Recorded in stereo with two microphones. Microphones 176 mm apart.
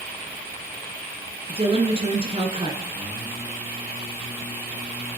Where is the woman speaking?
30° right (ahead or behind), 1.9 m.